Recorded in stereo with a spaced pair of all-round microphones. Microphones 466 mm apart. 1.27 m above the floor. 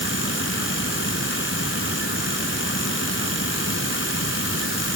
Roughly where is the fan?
Left.